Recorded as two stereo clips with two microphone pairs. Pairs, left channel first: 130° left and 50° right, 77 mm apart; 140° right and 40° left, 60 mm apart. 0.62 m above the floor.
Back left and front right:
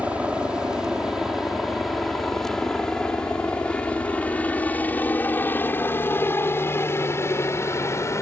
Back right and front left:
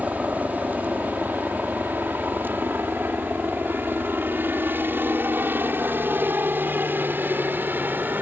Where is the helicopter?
10° left; by 8.2 s 90° left.